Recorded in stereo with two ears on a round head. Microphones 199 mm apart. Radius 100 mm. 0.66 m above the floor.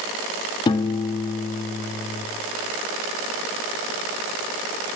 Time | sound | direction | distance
0.7 | a piano | 20° left (ahead or behind) | 1.2 m